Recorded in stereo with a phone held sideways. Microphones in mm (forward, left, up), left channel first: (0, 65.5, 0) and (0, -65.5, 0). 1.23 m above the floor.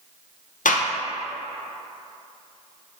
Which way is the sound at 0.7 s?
80° left.